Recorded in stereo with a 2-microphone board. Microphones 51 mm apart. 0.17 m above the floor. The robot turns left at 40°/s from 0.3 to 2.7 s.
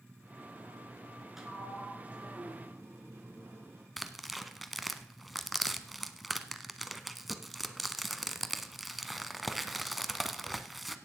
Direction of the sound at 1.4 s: 5° right.